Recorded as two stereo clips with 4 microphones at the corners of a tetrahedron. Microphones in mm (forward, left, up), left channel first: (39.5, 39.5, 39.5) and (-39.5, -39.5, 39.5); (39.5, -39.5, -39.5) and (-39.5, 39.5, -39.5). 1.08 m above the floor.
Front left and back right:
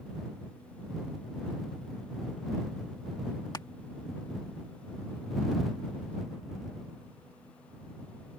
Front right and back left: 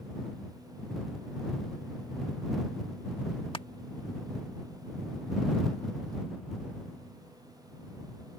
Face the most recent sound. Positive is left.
turn(degrees=-10)